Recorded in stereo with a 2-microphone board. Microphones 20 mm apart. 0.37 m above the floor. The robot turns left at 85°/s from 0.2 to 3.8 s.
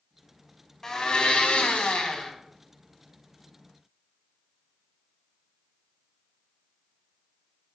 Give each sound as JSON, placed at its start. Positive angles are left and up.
{"t": 0.8, "sound": "a blender", "azimuth_deg": 165, "distance_m": 0.5}